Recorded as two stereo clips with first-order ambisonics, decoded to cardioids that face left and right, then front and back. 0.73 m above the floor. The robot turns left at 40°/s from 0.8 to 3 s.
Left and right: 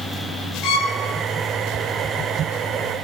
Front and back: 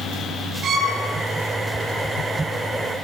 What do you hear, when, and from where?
0.6 s a violin: 120° left, 3.5 m; by 1.0 s 115° left, 3.5 m